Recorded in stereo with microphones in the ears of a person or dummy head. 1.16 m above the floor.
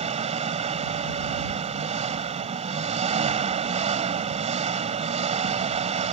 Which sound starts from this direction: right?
An engine running, at 0.0 s.